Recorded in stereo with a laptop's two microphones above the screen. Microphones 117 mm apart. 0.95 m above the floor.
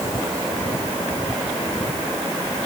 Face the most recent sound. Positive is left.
No sound to turn to.